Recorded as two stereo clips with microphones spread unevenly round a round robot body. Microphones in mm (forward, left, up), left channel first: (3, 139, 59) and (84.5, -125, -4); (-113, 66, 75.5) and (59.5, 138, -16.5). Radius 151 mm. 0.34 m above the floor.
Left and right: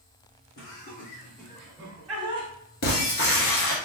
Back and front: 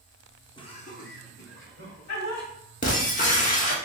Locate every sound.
0.6 s laughter: 110° left, 1.0 m; by 2.5 s 130° right, 1.7 m
2.8 s breaking glass: 155° left, 1.1 m